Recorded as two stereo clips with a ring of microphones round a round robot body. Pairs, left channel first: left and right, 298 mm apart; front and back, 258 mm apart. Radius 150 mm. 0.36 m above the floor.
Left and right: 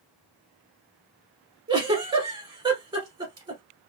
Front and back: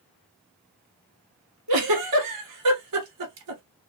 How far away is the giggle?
About 1.0 m.